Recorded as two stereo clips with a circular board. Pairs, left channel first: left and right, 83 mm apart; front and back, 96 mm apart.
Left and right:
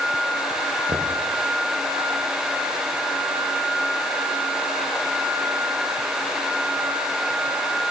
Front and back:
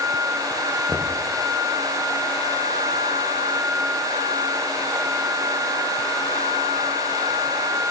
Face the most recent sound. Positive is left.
turn(degrees=-85)